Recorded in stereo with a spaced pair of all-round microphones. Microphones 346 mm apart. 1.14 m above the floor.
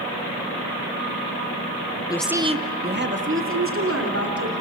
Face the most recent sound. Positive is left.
turn(degrees=-45)  # may be behind; listen again after turning